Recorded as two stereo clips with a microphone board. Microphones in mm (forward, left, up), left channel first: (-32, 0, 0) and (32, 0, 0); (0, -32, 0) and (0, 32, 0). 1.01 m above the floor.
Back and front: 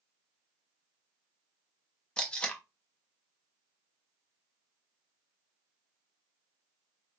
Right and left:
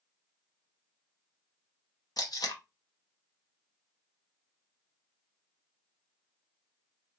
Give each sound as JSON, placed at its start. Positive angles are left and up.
{"t": 2.2, "sound": "tape being pulled", "azimuth_deg": -105, "distance_m": 0.7}